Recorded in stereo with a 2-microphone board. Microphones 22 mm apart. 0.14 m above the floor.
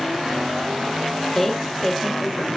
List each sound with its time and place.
1.4 s a woman speaking: 15° left (ahead or behind), 3.5 m